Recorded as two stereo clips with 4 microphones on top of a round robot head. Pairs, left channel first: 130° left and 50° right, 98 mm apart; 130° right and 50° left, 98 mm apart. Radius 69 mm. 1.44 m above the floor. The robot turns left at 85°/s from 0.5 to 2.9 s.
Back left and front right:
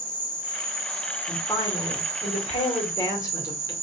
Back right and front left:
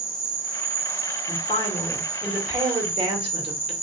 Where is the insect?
125° left, 1.0 m; by 3.8 s 75° right, 1.0 m.